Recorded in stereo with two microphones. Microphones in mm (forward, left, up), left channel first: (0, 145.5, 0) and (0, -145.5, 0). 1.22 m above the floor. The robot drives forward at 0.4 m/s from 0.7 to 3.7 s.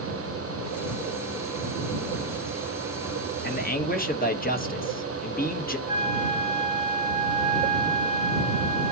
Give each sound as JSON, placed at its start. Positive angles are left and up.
{"t": 3.4, "sound": "a man speaking", "side_deg": 35, "distance_m": 1.0}
{"t": 5.9, "sound": "a flute", "side_deg": 30, "distance_m": 6.0}